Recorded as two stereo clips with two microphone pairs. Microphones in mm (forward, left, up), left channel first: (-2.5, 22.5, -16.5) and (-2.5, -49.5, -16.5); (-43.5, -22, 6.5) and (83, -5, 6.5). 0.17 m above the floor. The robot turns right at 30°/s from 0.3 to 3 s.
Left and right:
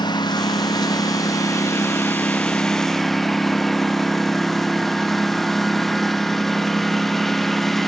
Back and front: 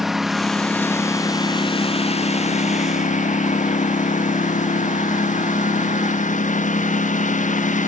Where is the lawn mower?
95° left; by 7.9 s 175° left.